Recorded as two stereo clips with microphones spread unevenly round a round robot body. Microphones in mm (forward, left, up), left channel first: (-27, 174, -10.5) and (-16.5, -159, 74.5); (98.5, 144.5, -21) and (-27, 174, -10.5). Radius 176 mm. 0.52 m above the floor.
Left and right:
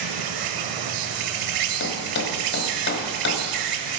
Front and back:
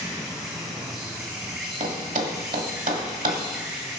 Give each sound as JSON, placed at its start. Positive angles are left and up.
{"t": 0.0, "sound": "an insect", "azimuth_deg": -110, "distance_m": 0.7}
{"t": 1.8, "sound": "a thud", "azimuth_deg": 150, "distance_m": 1.5}